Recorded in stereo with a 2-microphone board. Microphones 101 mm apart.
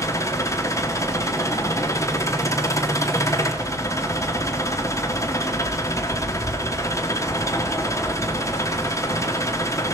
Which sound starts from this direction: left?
An engine running, at 0.0 s.